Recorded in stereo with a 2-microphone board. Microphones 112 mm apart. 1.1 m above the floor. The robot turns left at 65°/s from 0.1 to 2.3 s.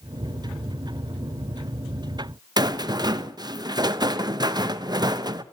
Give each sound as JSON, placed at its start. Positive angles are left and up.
{"t": 2.6, "sound": "a rattle", "side_deg": -40, "distance_m": 0.5}